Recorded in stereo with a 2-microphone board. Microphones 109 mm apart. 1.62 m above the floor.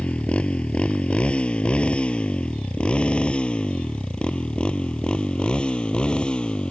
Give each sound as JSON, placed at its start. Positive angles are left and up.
{"t": 0.0, "sound": "a motorcycle", "side_deg": 10}